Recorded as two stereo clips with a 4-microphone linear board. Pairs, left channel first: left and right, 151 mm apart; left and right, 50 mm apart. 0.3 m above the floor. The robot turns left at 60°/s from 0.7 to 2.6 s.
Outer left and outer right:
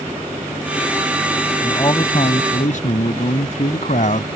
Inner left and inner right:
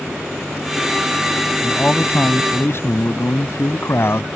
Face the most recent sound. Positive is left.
turn(degrees=100)